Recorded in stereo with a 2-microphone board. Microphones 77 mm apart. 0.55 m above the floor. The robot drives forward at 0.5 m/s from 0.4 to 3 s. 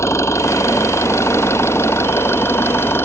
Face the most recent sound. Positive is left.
turn(degrees=30)  # may be behind; listen again after turning